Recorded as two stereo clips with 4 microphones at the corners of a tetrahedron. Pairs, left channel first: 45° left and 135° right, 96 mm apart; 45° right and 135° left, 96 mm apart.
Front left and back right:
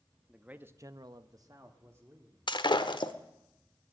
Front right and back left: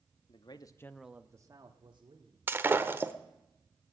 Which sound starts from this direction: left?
Breaking glass, at 2.5 s.